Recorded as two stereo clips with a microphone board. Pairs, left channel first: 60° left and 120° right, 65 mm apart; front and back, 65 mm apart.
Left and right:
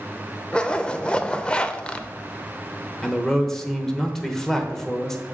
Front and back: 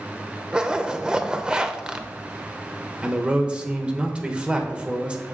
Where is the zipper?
115° left, 0.6 m.